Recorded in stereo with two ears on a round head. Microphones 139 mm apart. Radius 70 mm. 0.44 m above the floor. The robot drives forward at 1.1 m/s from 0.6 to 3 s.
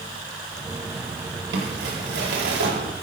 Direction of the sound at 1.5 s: 75° right (ahead or behind).